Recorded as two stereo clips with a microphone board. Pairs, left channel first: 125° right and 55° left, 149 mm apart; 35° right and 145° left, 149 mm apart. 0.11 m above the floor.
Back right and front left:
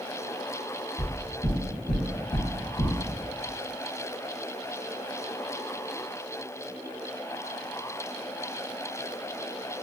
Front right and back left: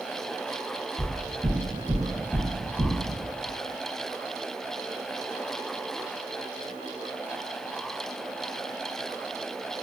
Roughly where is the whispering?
I don't hear whispering.